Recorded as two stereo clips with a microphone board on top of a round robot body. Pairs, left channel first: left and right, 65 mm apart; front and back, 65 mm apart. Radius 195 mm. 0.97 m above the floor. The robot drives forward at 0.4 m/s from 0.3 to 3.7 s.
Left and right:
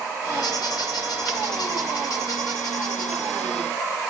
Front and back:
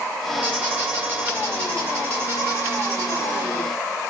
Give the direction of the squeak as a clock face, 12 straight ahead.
8 o'clock.